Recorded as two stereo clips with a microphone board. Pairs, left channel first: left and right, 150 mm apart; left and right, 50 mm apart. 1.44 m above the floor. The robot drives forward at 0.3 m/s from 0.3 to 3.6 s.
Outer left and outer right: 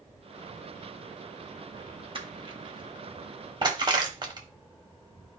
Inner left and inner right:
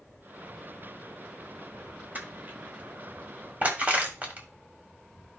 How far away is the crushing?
About 1.7 m.